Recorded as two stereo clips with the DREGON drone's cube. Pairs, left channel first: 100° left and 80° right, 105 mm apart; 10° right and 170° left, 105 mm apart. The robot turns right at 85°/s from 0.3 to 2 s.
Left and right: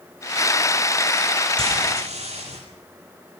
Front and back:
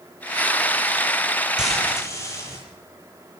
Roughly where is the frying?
Right.